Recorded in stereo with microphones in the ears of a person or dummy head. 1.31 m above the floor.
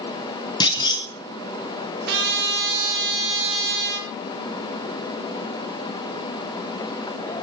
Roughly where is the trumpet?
Right.